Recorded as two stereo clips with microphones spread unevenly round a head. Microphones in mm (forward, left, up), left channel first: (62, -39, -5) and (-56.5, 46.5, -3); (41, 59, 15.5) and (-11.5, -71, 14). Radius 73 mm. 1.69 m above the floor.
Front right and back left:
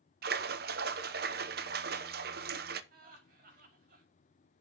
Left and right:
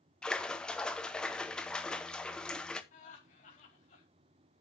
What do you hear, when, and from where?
0.2 s a splash: 155° left, 0.9 m
2.9 s laughter: 115° left, 4.5 m